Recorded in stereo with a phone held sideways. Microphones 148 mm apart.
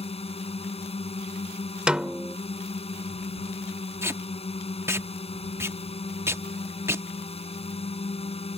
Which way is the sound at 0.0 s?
40° left (ahead or behind).